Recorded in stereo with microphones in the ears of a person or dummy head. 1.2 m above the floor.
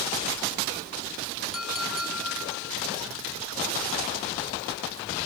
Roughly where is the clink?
Centre.